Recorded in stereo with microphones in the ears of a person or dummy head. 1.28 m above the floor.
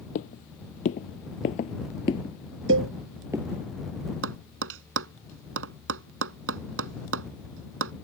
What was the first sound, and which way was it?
Footsteps, 50° left (ahead or behind).